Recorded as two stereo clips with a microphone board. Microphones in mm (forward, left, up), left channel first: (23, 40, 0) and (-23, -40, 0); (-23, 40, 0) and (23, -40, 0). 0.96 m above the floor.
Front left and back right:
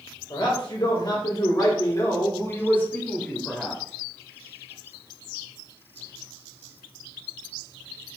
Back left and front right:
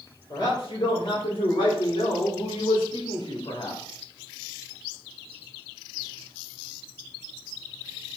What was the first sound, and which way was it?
A man speaking, 80° left.